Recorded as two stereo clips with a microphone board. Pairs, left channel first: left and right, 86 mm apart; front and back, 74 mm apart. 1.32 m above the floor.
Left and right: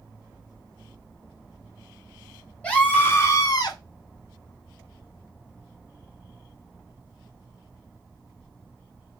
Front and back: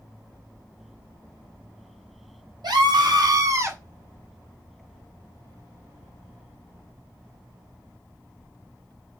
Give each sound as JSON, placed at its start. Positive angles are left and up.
{"t": 2.6, "sound": "a scream", "azimuth_deg": 165, "distance_m": 1.5}